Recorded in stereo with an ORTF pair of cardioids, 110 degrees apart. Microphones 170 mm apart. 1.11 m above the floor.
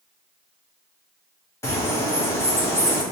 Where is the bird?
15° left, 1.0 m.